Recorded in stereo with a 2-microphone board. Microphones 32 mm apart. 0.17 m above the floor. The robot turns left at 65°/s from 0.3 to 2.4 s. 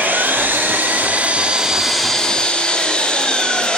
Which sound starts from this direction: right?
An engine running, at 0.0 s.